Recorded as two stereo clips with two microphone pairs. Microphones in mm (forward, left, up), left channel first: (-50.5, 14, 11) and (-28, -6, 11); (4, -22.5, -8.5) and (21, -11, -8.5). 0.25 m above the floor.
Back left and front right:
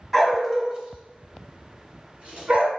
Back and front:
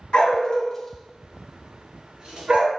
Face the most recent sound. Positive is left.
turn(degrees=5)